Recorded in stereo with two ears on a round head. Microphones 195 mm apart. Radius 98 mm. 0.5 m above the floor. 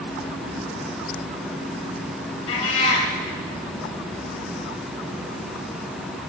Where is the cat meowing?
65° left (ahead or behind), 4 m.